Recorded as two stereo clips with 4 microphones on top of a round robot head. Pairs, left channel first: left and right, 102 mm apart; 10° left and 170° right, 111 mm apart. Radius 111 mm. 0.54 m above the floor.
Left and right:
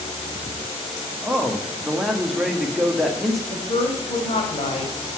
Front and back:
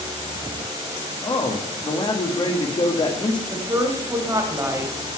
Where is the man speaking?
5° right, 1.5 m.